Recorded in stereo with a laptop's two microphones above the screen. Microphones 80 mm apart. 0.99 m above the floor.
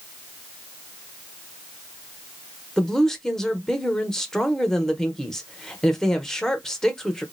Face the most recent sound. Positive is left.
turn(degrees=5)  # may be behind; listen again after turning